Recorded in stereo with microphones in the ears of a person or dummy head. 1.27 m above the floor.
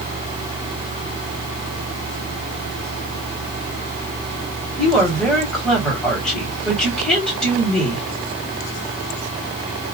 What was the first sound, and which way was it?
A woman speaking, 10° left (ahead or behind).